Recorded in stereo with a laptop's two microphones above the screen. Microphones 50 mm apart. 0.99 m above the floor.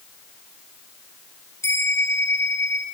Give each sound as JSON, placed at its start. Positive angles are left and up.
{"t": 1.6, "sound": "a bell", "side_deg": 65, "distance_m": 5.0}